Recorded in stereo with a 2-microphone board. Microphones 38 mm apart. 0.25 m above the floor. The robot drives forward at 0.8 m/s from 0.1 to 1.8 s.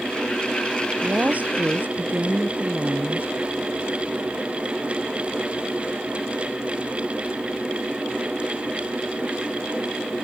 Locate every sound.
1.0 s a woman speaking: 45° right (ahead or behind); by 3.3 s 50° right (ahead or behind)